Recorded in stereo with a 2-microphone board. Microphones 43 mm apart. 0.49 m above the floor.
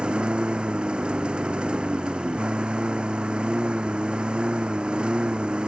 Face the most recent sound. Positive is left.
turn(degrees=-20)  # may be behind; listen again after turning